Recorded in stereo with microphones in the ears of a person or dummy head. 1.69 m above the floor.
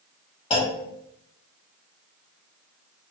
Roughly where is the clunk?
Left.